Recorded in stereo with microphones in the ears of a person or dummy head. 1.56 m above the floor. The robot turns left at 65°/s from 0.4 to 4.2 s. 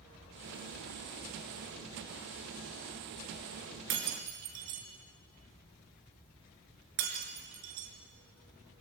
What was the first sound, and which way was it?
Breaking glass, 60° right (ahead or behind).